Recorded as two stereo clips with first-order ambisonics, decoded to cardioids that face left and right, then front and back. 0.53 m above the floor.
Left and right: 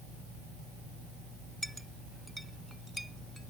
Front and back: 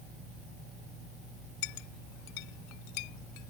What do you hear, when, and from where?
1.6 s a clink: straight ahead